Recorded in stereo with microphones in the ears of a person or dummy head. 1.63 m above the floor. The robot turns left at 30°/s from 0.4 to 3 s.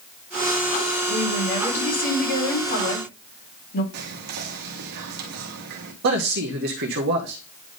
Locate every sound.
1.1 s a woman speaking: 150° left, 4.5 m; by 3.8 s 90° left, 4.5 m
3.9 s whispering: 55° right (ahead or behind), 1.3 m
6.0 s a man speaking: 55° right (ahead or behind), 1.0 m